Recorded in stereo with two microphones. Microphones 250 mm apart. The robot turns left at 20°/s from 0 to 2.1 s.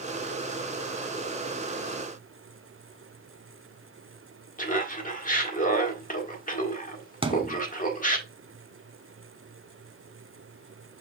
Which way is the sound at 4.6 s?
35° left (ahead or behind).